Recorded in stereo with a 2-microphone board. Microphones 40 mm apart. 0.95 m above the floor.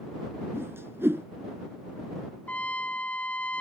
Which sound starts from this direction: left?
A trumpet, at 2.5 s.